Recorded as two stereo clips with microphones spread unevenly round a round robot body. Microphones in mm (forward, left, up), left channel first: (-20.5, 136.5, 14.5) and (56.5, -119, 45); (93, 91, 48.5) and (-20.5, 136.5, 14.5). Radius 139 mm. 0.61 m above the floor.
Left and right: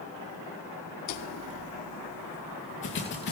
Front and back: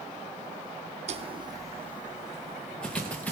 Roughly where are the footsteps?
Behind left.